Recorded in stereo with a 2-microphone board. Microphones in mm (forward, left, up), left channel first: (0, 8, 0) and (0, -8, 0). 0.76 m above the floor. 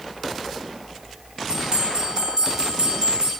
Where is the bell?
50° right (ahead or behind), 3 m.